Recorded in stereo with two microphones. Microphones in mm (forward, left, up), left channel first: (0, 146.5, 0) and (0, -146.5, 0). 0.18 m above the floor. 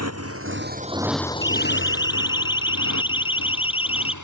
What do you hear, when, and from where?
0.0 s a motorcycle: 60° right (ahead or behind); by 4.2 s 75° left (ahead or behind)
1.4 s a siren: 15° left (ahead or behind); by 4.2 s 20° left (ahead or behind)